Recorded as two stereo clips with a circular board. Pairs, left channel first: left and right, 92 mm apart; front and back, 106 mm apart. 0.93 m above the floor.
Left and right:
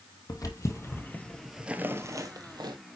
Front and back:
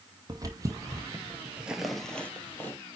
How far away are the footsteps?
About 1.7 m.